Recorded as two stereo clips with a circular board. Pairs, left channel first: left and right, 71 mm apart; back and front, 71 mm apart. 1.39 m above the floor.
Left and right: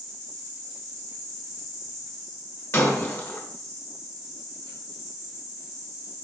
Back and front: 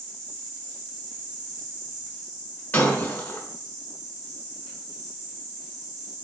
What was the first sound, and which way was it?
An insect, 65° right.